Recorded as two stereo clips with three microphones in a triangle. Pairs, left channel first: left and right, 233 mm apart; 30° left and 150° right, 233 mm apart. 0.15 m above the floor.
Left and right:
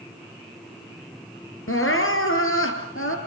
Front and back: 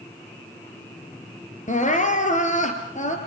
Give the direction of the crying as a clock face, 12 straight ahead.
9 o'clock.